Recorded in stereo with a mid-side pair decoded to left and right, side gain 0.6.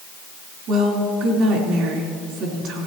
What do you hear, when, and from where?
0.7 s a woman speaking: 65° right, 3.5 m